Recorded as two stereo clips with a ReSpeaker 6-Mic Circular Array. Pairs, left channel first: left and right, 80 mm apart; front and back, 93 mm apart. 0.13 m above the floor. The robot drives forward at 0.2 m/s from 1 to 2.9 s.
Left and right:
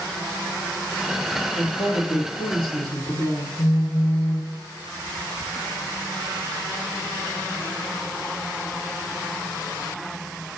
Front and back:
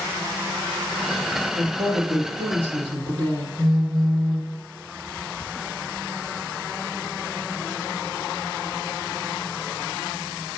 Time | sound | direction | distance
1.6 | a woman speaking | 140° left | 3 m
3.6 | a phone buzzing | 90° left | 3 m